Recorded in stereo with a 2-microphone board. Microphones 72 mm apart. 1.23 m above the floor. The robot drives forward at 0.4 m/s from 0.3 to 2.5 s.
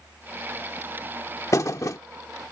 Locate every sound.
1.5 s a thud: 45° left (ahead or behind); by 2.0 s 50° left (ahead or behind)